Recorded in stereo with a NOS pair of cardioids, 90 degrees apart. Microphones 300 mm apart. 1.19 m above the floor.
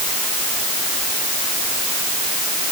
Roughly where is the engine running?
No engine running in this recording.